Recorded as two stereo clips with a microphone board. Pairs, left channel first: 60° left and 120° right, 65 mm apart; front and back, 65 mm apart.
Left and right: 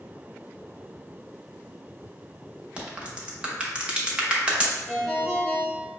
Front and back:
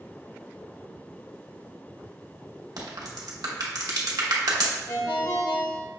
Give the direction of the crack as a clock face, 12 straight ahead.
6 o'clock.